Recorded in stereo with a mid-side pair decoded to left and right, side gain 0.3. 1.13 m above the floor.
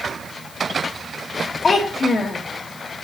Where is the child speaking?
55° left, 0.8 m.